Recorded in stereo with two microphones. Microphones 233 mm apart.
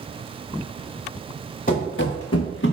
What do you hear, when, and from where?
1.7 s running footsteps: 35° left (ahead or behind), 0.9 m; by 2.7 s 45° left (ahead or behind), 0.7 m